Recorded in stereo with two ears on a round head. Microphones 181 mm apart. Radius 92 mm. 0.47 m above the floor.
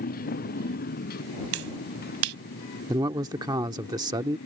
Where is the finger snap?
75° right (ahead or behind).